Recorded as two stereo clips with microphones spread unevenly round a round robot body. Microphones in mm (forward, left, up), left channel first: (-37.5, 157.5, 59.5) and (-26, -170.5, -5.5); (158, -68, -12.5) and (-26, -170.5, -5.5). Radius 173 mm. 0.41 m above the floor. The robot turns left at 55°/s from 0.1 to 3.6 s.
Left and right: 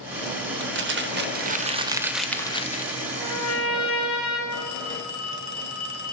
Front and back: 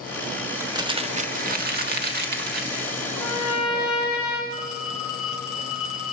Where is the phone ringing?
45° left, 2.5 m.